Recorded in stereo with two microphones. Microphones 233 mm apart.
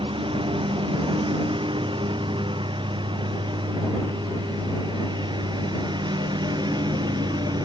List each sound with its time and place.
0.0 s a lawn mower: 25° right (ahead or behind); by 7.7 s 20° right (ahead or behind)